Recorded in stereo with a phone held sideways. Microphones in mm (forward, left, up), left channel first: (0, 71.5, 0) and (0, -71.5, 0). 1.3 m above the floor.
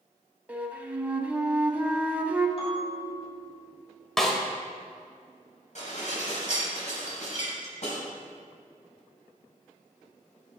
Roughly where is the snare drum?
Centre.